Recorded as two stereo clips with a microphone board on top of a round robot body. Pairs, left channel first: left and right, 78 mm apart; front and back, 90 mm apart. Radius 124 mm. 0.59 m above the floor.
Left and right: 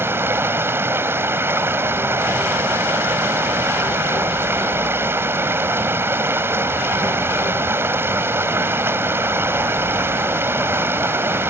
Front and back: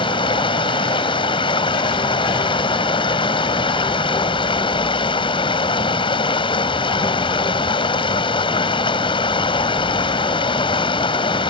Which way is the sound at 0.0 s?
30° right.